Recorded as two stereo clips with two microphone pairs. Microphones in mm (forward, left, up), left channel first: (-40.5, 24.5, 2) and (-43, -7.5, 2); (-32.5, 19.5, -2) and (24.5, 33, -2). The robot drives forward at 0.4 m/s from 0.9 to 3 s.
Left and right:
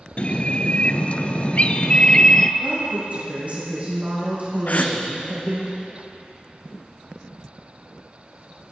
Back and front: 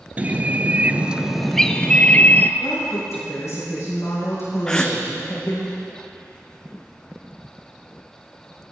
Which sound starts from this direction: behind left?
A gasp, at 4.7 s.